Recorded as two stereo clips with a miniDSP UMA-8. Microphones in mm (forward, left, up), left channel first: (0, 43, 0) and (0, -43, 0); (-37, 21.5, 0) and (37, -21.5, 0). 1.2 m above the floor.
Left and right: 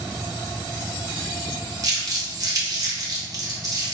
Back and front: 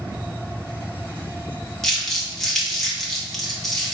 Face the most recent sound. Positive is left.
turn(degrees=-125)